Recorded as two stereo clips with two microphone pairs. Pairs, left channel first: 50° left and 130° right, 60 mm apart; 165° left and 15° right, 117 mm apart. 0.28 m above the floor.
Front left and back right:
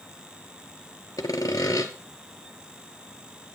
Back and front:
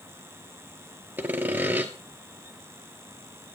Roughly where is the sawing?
Ahead left.